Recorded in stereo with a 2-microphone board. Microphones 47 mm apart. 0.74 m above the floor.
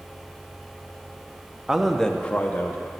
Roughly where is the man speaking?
Centre.